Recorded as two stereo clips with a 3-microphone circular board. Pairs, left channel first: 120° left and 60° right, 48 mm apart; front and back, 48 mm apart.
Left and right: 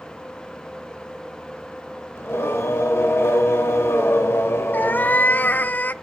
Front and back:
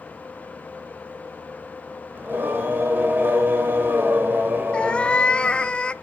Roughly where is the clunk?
I don't hear a clunk.